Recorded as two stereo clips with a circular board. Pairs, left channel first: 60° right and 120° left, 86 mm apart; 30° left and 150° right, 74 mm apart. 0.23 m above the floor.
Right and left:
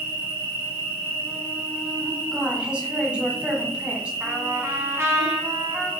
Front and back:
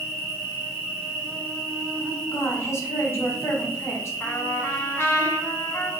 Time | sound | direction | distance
0.0 | an insect | 165° left | 1.6 m
2.3 | a woman speaking | 50° left | 1.3 m
4.2 | a trumpet | 65° left | 0.9 m